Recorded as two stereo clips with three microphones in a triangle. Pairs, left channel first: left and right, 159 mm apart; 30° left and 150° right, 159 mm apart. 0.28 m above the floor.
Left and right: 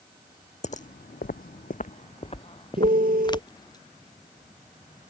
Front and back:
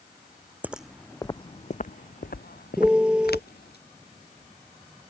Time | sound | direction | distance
0.6 | footsteps | 130° left | ?
2.8 | a piano | 65° right | ?